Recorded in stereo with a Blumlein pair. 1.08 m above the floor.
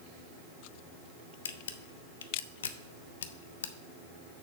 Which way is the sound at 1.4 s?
65° left.